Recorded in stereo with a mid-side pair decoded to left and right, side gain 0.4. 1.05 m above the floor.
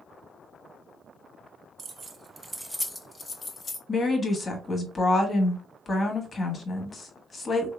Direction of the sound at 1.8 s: 55° right.